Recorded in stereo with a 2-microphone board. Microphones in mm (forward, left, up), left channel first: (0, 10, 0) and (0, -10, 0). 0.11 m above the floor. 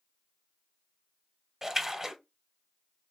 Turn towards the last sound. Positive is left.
turn(degrees=-20)  # may be behind; listen again after turning